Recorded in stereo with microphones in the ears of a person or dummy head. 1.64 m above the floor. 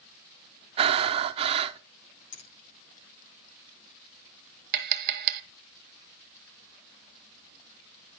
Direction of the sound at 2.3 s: 85° left.